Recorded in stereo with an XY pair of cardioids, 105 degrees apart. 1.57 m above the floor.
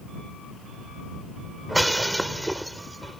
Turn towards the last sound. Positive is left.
turn(degrees=-10)